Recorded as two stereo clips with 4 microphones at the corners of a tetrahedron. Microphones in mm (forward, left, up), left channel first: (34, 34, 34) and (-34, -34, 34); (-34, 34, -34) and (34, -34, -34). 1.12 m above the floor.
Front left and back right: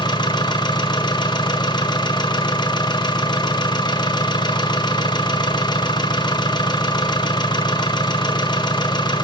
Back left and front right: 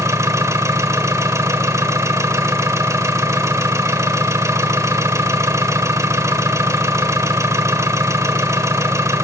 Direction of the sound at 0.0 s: 10° left.